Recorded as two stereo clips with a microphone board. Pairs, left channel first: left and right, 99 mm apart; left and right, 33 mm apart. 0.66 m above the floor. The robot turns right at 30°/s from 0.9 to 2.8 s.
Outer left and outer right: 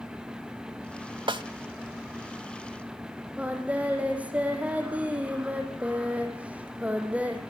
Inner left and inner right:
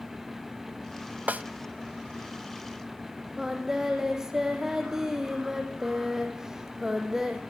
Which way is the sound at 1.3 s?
55° right (ahead or behind).